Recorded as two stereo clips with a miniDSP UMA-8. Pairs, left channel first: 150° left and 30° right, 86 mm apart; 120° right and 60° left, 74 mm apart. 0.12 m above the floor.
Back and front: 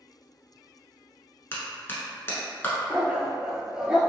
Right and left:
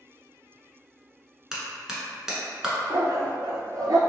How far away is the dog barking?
About 0.6 m.